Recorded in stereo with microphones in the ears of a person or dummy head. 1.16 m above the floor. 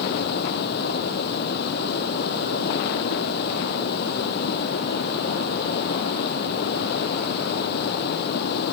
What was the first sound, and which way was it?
Running water, 55° left (ahead or behind).